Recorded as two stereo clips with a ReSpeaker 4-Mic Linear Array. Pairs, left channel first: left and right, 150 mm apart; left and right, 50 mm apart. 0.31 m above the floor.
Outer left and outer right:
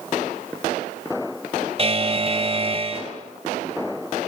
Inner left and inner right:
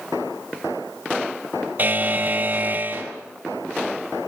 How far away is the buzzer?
About 1.8 m.